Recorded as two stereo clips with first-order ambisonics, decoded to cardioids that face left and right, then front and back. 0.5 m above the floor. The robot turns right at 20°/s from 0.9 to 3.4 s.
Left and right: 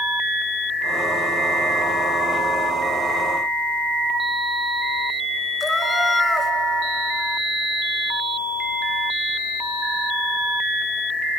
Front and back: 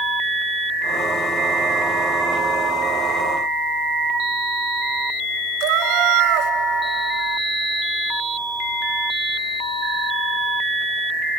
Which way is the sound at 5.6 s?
170° left.